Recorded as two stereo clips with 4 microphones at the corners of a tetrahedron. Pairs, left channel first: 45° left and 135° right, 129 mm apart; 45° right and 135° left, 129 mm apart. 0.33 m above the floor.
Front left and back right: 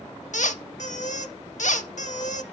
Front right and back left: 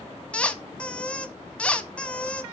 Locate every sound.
0.3 s a squeak: 35° left, 0.6 m